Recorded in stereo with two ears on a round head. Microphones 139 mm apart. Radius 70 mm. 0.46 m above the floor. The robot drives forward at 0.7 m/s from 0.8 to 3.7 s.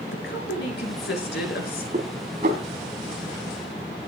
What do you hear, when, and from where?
0.1 s a woman speaking: 80° left, 5.5 m
1.9 s dishes clattering: 50° right (ahead or behind), 3 m; by 2.6 s 60° right (ahead or behind), 2.5 m